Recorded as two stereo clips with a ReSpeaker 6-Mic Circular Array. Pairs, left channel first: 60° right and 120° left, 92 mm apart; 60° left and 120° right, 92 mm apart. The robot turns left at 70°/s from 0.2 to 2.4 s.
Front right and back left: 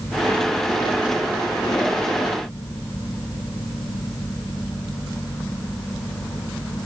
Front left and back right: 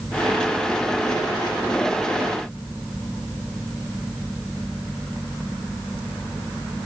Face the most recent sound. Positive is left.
No sound to turn to.